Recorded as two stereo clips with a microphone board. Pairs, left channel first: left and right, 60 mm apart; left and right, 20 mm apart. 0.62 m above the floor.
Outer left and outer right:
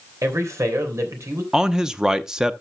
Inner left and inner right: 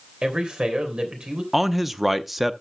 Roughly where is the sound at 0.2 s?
Right.